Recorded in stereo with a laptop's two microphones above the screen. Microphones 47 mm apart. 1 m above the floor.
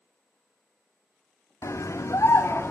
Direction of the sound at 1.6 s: 85° left.